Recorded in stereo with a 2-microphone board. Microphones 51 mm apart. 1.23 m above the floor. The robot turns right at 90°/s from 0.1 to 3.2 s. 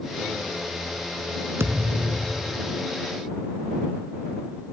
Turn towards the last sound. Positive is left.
turn(degrees=80)